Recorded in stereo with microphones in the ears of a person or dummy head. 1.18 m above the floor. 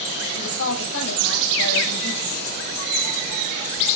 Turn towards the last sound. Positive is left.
turn(degrees=65)  # may be behind; listen again after turning